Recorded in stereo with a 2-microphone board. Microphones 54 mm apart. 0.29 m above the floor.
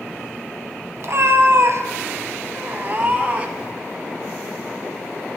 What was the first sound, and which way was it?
A cat meowing, 55° right (ahead or behind).